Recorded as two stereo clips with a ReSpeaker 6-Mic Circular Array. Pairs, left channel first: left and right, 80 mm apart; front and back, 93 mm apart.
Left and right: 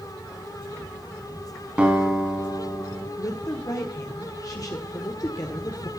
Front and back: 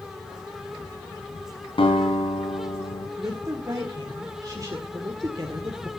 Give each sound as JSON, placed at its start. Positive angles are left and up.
{"t": 1.8, "sound": "a guitar", "azimuth_deg": -15, "distance_m": 4.0}
{"t": 3.2, "sound": "a woman speaking", "azimuth_deg": 130, "distance_m": 1.7}